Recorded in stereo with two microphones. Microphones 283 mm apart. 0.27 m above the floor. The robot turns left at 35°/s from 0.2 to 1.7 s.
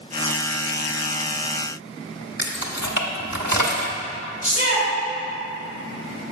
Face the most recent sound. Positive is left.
turn(degrees=30)  # may be behind; listen again after turning